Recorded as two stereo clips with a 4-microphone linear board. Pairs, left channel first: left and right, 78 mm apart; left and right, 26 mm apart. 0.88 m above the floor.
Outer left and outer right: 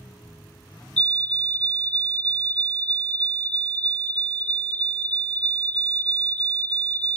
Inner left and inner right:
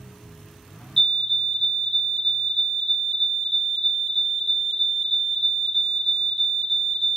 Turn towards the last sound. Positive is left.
turn(degrees=20)  # may be behind; listen again after turning